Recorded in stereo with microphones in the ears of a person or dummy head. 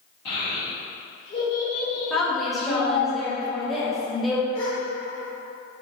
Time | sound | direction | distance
0.2 | a child speaking | 65° left (ahead or behind) | 1.6 m
2.1 | a woman speaking | 5° left (ahead or behind) | 0.9 m
4.5 | a gasp | 40° left (ahead or behind) | 1.1 m